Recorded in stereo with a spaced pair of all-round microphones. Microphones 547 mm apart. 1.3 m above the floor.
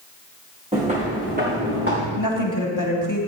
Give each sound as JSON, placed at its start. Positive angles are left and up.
{"t": 0.7, "sound": "footsteps", "side_deg": -10, "distance_m": 4.0}
{"t": 2.2, "sound": "a woman speaking", "side_deg": 35, "distance_m": 3.0}